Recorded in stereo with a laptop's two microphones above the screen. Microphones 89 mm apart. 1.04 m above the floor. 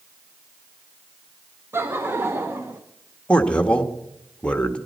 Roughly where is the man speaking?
Centre.